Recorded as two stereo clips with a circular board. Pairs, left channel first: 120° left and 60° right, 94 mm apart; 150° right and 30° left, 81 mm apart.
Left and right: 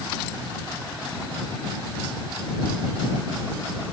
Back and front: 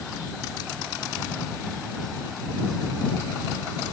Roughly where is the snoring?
I don't hear snoring.